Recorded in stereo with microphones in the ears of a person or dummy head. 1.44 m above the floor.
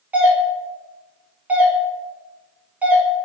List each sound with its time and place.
0.1 s a doorbell: 5° right (ahead or behind), 0.5 m